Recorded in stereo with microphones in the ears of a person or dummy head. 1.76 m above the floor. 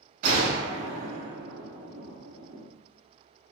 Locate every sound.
0.2 s a gunshot: 50° right (ahead or behind), 1.1 m